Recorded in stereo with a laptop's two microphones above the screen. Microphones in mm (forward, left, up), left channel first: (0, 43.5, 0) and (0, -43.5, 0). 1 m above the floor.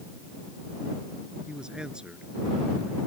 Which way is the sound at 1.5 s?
10° right (ahead or behind).